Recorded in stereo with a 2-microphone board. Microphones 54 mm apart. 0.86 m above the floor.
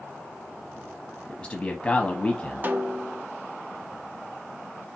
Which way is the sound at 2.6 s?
35° right (ahead or behind).